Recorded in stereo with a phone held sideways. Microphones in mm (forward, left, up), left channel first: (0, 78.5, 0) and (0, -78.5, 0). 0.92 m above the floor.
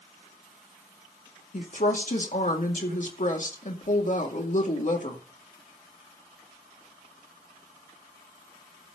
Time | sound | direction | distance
1.5 | a woman speaking | 55° left (ahead or behind) | 2 m